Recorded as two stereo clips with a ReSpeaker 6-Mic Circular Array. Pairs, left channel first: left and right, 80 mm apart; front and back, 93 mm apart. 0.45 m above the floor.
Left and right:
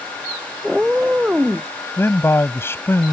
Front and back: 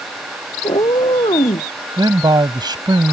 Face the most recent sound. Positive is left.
turn(degrees=145)